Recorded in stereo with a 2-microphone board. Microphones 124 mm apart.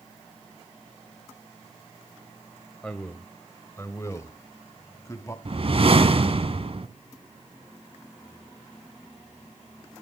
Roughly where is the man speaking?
Centre.